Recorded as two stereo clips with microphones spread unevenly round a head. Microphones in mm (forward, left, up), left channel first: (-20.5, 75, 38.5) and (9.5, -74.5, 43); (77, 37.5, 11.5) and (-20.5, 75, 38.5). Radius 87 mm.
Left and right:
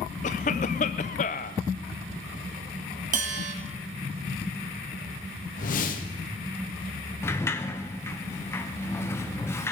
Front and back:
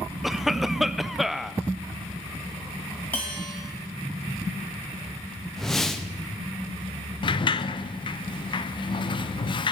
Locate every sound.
0.2 s a cough: 90° left, 0.6 m
3.1 s a bell: 110° right, 1.3 m
5.6 s a whoosh: 65° left, 1.3 m
7.2 s a sliding door: 25° left, 0.8 m